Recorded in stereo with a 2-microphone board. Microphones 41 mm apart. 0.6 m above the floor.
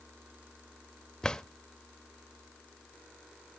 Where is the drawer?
20° left (ahead or behind), 0.6 m.